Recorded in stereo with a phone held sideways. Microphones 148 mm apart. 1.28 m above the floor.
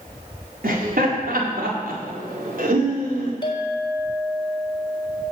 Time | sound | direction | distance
0.6 | laughter | 80° right | 4.5 m
3.4 | a clink | 30° left (ahead or behind) | 3.5 m